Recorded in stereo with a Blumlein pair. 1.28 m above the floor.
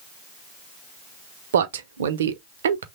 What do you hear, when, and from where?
1.5 s a man speaking: 60° right, 0.6 m